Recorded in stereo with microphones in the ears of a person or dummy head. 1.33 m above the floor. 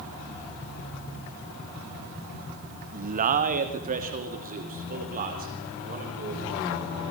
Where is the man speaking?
35° right (ahead or behind), 1.2 m.